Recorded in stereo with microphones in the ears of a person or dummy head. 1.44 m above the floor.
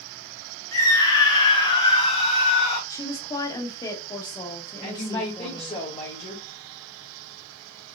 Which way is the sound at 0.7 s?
20° left (ahead or behind).